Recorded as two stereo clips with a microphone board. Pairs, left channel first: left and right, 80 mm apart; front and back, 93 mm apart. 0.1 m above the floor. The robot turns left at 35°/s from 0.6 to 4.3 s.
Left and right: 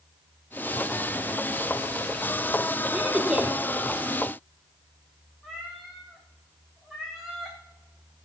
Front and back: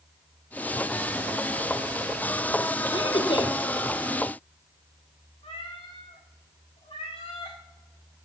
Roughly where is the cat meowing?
Ahead.